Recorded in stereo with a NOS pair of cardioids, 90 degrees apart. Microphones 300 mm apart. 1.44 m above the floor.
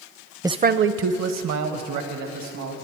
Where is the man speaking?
10° right, 0.5 m; by 2.7 s 75° right, 2.5 m.